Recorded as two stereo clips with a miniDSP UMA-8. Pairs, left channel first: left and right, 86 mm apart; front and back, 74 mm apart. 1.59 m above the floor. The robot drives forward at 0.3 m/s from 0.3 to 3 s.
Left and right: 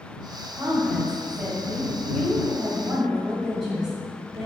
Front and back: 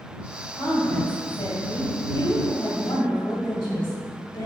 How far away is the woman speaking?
About 2.0 m.